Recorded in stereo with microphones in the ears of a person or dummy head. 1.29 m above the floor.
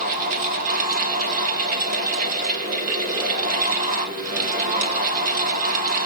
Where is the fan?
45° right (ahead or behind), 2 m.